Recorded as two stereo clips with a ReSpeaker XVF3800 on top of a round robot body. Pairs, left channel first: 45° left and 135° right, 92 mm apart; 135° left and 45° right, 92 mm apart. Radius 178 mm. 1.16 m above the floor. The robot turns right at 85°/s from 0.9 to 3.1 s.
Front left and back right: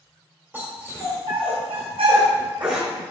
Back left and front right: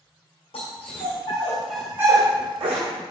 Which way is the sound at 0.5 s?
155° left.